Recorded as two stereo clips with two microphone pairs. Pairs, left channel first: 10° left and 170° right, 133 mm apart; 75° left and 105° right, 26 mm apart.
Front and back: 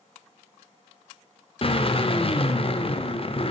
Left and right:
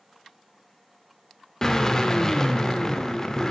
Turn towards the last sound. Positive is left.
turn(degrees=20)